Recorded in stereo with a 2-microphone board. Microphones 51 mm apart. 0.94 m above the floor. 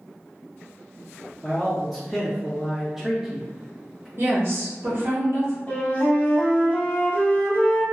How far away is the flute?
About 0.9 m.